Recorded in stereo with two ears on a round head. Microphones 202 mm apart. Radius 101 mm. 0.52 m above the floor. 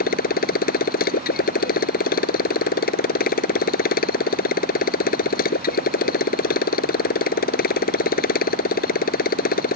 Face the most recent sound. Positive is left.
turn(degrees=40)  # may be behind; listen again after turning